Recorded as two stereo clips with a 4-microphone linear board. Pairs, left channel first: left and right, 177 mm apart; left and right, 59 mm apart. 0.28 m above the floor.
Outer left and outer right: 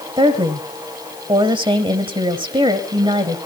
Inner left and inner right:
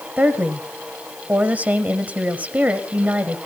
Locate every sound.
0.2 s a woman speaking: 25° right (ahead or behind), 1.4 m